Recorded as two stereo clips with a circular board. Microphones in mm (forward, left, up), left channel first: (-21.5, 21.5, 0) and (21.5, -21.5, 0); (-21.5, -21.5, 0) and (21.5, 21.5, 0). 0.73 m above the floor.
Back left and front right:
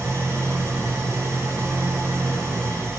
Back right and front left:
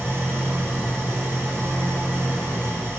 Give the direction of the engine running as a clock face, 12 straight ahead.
12 o'clock.